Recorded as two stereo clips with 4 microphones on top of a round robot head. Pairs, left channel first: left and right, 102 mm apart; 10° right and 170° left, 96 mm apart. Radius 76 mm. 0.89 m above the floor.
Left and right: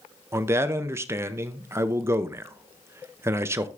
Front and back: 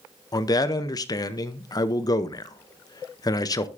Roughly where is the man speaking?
Ahead right.